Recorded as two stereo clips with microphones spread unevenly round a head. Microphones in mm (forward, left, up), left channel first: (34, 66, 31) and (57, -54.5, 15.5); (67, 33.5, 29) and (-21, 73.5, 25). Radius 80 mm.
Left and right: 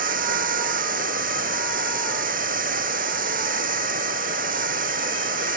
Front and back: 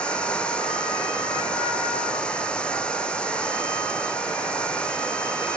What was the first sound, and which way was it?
Running water, 110° right.